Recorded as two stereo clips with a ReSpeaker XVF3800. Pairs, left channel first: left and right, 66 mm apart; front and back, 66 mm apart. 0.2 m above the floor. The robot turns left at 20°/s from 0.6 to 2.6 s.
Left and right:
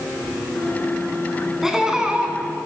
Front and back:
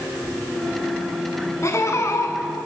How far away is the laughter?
About 1.8 m.